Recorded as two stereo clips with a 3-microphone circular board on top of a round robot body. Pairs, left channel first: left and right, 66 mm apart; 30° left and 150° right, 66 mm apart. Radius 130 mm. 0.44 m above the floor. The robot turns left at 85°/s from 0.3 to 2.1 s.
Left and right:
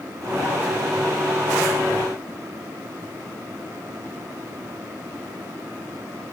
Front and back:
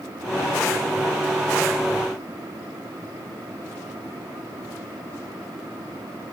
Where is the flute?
No flute in this recording.